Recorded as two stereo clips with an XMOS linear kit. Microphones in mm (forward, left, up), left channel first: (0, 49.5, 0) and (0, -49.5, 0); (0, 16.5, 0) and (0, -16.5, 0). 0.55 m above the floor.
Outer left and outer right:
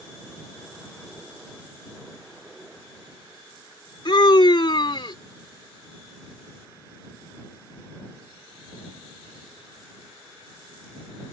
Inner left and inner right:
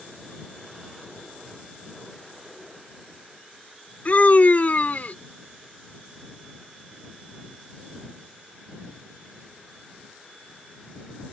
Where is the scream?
55° left (ahead or behind).